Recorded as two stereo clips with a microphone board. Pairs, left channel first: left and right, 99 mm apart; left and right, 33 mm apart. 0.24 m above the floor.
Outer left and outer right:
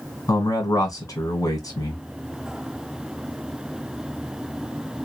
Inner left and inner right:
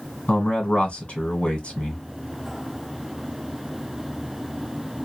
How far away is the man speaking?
About 1.5 m.